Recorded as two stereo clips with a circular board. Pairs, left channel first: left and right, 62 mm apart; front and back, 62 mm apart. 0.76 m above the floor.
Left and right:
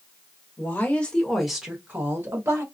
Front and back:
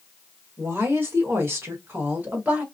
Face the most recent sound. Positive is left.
turn(degrees=-115)